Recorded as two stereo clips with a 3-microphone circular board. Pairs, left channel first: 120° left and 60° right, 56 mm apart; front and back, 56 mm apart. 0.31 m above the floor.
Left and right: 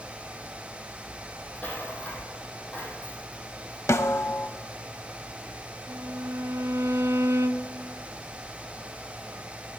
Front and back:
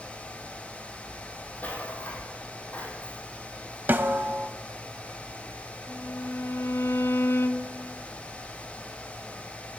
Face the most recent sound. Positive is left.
turn(degrees=-35)